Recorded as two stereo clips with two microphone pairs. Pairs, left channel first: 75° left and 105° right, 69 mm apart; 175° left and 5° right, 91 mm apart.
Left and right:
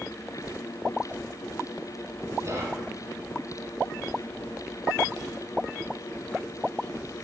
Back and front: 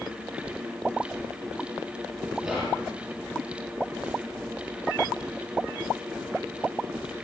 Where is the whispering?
90° right, 1.6 m.